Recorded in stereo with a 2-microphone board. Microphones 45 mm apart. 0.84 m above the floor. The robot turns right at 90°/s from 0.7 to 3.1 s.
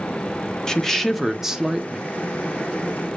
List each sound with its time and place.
0.7 s a woman speaking: 15° left (ahead or behind), 0.5 m; by 2.1 s 20° right (ahead or behind), 0.5 m